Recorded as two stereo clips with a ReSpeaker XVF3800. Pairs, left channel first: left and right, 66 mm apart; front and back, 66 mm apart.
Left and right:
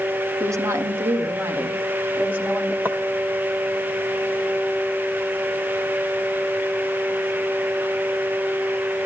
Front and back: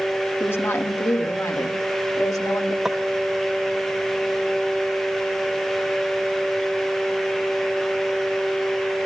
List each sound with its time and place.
0.4 s a woman speaking: 55° right, 1.5 m; by 2.8 s 25° right, 2 m
2.9 s footsteps: 100° right, 1.1 m